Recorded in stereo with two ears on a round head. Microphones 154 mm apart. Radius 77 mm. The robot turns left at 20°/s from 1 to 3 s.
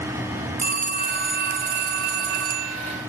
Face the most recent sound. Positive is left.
turn(degrees=-95)